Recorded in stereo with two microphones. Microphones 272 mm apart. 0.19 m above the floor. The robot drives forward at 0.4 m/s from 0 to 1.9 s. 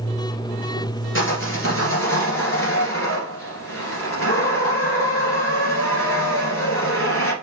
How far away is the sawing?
About 2 m.